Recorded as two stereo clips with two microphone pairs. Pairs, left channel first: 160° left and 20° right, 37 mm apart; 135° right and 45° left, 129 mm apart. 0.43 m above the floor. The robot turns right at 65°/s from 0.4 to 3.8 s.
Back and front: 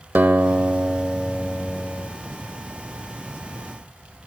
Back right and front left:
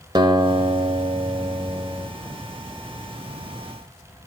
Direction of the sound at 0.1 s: Straight ahead.